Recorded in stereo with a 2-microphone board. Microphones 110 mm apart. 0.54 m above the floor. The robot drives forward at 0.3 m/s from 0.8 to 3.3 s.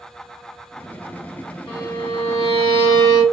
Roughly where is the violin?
Left.